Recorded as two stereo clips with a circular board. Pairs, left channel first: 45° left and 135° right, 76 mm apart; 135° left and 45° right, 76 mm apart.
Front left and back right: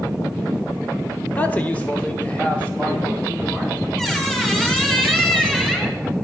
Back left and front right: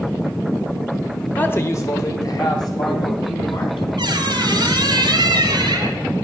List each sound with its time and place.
1.4 s a man speaking: 85° left, 0.8 m; by 3.8 s 120° left, 4 m
4.0 s a squeak: 35° right, 1.6 m